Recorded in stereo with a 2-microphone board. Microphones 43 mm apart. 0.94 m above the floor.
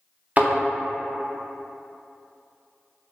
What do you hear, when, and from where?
0.4 s a thud: 35° right (ahead or behind), 0.5 m